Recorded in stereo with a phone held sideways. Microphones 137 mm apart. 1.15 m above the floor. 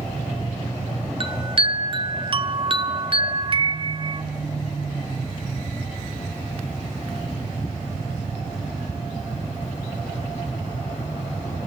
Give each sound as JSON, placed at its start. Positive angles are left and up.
{"t": 1.2, "sound": "a chime", "side_deg": -40, "distance_m": 0.9}